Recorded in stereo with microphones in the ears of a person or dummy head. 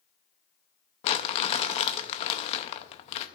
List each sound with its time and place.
1.0 s crumpling: 40° left (ahead or behind), 0.5 m